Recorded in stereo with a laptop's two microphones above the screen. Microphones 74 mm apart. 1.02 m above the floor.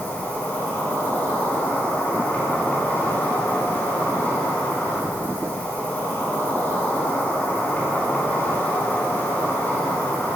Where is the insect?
30° left (ahead or behind), 3.5 m.